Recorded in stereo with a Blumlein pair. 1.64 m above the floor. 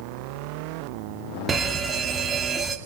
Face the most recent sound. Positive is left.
turn(degrees=-20)